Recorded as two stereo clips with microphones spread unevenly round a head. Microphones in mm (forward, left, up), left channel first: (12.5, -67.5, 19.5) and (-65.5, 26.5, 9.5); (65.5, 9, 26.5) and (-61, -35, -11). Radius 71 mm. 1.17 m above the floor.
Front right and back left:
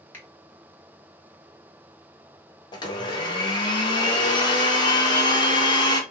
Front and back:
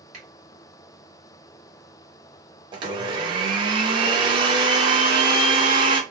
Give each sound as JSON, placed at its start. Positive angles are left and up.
{"t": 0.1, "sound": "a finger snap", "azimuth_deg": -125, "distance_m": 1.7}
{"t": 2.7, "sound": "a blender", "azimuth_deg": -105, "distance_m": 0.9}